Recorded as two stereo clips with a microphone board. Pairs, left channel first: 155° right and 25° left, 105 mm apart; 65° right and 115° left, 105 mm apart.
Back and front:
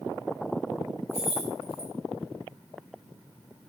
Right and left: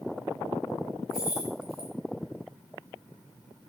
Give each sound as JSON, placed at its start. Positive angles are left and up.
{"t": 1.1, "sound": "keys jangling", "azimuth_deg": -165, "distance_m": 4.5}